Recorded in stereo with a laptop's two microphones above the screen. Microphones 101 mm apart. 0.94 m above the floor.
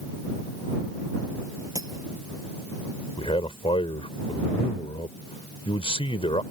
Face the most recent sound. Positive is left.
turn(degrees=70)  # may be behind; listen again after turning